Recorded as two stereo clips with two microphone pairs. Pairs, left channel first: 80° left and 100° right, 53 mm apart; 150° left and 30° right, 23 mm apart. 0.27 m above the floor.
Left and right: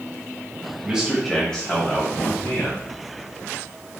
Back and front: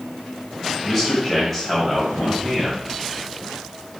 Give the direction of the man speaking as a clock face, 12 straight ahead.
4 o'clock.